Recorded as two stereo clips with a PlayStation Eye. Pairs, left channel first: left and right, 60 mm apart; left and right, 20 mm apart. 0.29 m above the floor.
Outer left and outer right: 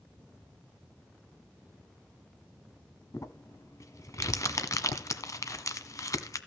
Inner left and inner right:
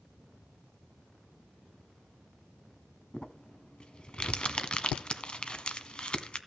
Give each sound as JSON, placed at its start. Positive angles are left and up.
{"t": 3.1, "sound": "crumpling", "side_deg": 65, "distance_m": 1.1}